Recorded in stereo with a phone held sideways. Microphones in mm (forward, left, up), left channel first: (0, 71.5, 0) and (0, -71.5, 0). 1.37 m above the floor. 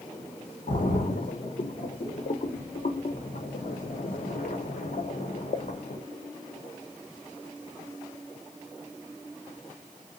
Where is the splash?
65° left (ahead or behind), 0.8 m.